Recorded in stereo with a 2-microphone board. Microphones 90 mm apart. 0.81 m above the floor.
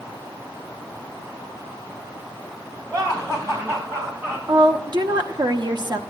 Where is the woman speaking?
50° right (ahead or behind), 0.9 m.